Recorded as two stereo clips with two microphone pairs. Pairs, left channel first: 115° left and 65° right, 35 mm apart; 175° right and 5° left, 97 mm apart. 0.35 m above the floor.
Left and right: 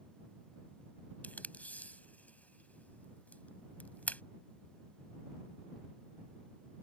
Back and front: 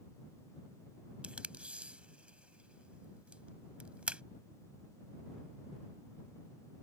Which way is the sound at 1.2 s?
80° left.